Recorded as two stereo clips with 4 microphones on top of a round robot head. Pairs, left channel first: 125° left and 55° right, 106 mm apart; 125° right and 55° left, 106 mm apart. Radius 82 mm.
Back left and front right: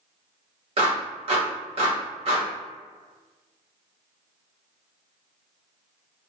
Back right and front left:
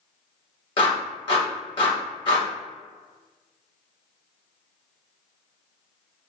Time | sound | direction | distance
0.8 | a clap | 85° right | 1.3 m